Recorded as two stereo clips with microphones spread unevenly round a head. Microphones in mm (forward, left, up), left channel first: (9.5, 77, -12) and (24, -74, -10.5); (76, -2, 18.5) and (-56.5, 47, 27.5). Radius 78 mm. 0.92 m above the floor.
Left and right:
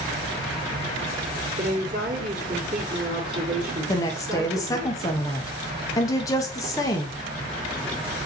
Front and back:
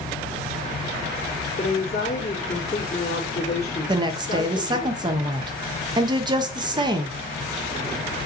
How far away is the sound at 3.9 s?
About 0.6 m.